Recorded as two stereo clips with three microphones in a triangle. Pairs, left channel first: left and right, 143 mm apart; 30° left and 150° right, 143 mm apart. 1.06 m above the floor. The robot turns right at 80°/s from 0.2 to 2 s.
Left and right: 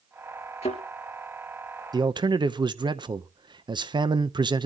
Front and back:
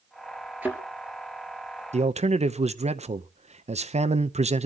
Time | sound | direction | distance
0.6 | a thud | 130° left | 3 m
1.9 | a man speaking | 145° right | 0.6 m